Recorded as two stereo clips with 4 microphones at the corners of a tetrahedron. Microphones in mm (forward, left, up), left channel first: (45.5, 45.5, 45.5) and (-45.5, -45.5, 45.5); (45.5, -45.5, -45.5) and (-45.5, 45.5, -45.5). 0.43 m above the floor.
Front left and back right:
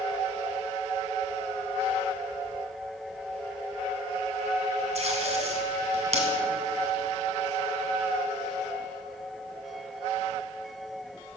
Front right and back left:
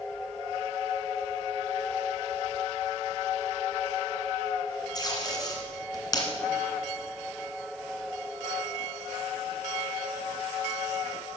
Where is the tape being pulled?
105° right, 1.8 m.